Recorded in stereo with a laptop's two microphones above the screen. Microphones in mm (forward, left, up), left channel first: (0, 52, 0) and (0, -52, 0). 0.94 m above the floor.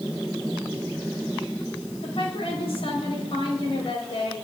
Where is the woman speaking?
70° left (ahead or behind), 5 m.